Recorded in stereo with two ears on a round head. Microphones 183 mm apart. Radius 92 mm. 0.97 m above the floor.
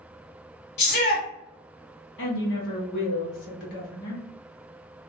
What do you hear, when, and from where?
0.8 s a shout: 50° left (ahead or behind), 1.7 m
2.2 s a woman speaking: 55° left (ahead or behind), 1.3 m